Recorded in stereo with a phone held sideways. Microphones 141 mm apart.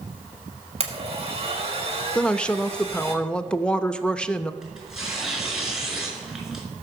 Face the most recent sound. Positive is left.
turn(degrees=-5)  # may be behind; listen again after turning